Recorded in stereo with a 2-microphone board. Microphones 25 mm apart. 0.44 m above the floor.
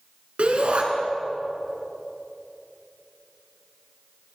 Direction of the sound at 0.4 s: 50° right (ahead or behind).